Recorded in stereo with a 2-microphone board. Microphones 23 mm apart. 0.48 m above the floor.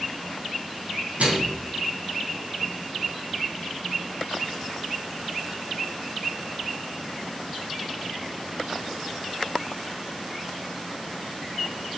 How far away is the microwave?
About 3 m.